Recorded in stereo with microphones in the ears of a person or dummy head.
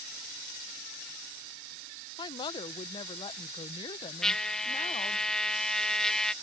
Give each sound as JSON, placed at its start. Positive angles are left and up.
{"t": 2.2, "sound": "a woman speaking", "side_deg": 30}
{"t": 4.2, "sound": "a trumpet", "side_deg": 5}